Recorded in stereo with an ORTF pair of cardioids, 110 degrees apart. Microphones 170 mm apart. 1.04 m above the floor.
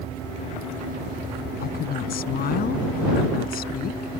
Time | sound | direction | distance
1.6 | a woman speaking | 60° left | ?